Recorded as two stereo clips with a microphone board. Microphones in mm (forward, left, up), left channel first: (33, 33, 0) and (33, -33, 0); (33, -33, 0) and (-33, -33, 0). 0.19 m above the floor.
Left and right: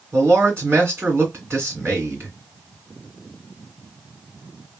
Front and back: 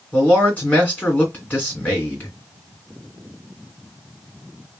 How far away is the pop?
I don't hear a pop.